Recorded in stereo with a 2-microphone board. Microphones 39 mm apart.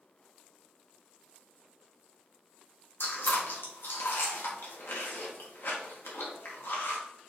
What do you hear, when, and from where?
3.0 s chewing: 80° left, 1.2 m